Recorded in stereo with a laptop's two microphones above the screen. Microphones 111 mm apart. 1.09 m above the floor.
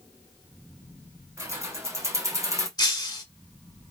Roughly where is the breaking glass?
Left.